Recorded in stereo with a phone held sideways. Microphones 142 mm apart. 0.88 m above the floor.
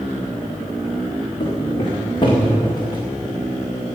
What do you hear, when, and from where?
1.4 s footsteps: 40° left (ahead or behind), 4 m; by 3.0 s 30° left (ahead or behind), 3.5 m